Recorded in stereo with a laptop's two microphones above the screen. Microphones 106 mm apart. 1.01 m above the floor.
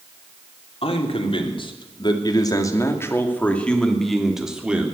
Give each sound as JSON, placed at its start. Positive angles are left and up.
{"t": 0.8, "sound": "a man speaking", "side_deg": 65, "distance_m": 3.0}